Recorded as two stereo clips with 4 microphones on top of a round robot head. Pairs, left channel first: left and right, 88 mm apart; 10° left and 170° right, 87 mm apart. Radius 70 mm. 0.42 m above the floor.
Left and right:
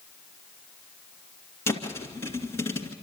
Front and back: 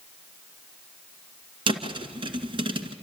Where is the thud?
160° left, 1.9 m.